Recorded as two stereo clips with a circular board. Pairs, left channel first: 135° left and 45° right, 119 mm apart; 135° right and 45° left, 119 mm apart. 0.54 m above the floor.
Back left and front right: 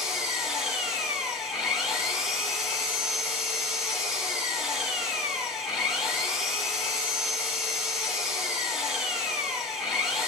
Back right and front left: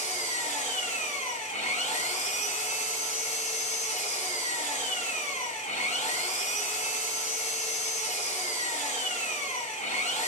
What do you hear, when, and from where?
0.0 s an engine running: 135° right, 1.3 m